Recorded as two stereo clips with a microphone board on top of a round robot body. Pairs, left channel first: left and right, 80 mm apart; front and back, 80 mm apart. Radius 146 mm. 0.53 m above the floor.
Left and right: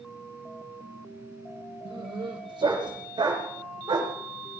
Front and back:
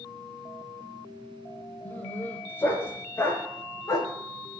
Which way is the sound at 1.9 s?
70° right.